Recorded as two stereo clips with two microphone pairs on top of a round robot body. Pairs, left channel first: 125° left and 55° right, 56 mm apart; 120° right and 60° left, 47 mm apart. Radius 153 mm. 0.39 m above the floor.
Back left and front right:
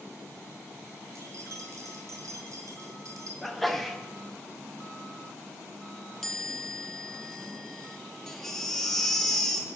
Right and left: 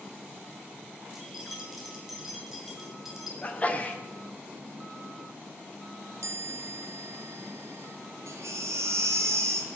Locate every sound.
1.1 s keys jangling: 25° right, 2 m
3.4 s a sneeze: 165° right, 1.7 m
6.2 s a chime: 50° left, 0.7 m
8.3 s a baby crying: 50° left, 1.6 m